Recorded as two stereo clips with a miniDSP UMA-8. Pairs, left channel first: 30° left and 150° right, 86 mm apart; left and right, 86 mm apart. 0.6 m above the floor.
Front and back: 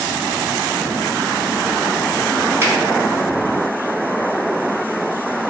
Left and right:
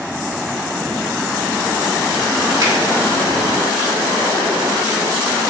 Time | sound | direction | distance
2.6 | a finger snap | 105° right | 1.8 m